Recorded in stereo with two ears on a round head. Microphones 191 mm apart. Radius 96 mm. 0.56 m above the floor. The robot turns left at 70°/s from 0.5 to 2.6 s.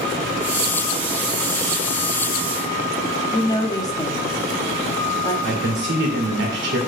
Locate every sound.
3.3 s a woman speaking: 20° left (ahead or behind), 0.6 m
5.4 s a man speaking: 60° right (ahead or behind), 1.9 m